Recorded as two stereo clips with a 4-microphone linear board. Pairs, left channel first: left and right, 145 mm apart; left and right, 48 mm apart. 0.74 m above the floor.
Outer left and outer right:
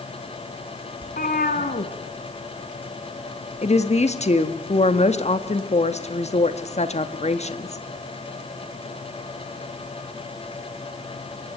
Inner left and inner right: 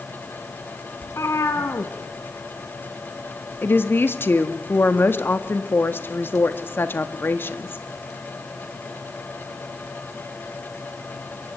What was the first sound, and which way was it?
A cat meowing, 70° left (ahead or behind).